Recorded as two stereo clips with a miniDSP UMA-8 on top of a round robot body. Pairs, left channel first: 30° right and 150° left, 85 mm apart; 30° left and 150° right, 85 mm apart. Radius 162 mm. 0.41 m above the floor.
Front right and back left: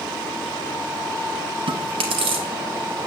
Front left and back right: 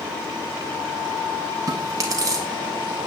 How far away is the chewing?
About 0.6 m.